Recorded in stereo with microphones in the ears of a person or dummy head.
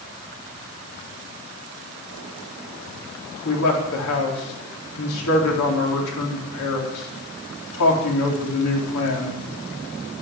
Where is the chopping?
No chopping in this recording.